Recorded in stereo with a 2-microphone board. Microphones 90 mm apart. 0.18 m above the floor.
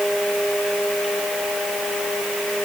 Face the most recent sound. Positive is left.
No sound to turn to.